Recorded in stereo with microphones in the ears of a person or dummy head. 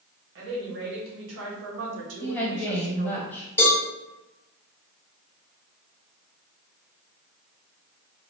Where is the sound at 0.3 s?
70° right (ahead or behind), 1.5 m; by 3.2 s 30° right (ahead or behind), 0.7 m.